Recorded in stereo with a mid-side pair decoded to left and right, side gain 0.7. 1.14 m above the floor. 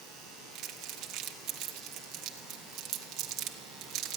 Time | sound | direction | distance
0.6 | crumpling | 60° right | 1.7 m